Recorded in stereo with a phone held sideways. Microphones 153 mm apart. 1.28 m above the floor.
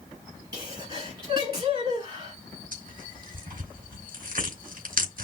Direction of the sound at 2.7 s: 70° right (ahead or behind).